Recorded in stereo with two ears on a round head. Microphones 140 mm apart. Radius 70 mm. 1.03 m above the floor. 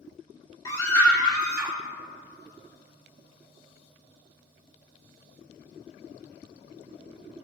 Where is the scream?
20° left (ahead or behind), 1.4 m; by 1.8 s 5° right (ahead or behind), 1.5 m.